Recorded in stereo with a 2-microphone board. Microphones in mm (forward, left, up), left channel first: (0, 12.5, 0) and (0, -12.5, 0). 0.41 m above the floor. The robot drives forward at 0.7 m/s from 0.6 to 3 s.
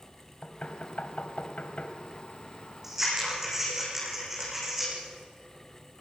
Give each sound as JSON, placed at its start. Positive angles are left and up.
{"t": 0.4, "sound": "knocking", "side_deg": 55, "distance_m": 1.9}
{"t": 2.8, "sound": "scissors", "side_deg": -15, "distance_m": 8.0}